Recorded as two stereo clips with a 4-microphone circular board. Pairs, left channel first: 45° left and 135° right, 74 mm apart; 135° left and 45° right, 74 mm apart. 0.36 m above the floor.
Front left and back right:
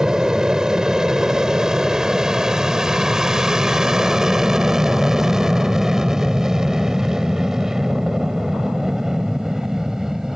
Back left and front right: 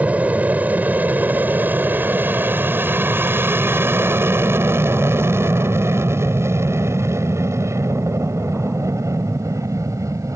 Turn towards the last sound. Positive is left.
turn(degrees=-55)